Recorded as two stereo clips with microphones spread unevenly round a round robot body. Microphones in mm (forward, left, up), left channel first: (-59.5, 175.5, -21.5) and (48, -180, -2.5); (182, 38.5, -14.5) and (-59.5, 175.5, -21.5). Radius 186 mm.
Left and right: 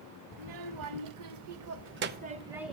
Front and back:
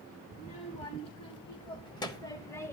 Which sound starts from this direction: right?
A child speaking, at 0.3 s.